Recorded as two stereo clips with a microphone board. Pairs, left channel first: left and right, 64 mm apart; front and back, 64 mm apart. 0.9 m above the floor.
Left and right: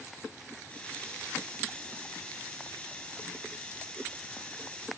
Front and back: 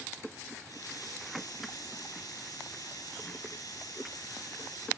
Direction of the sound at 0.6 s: 20° left.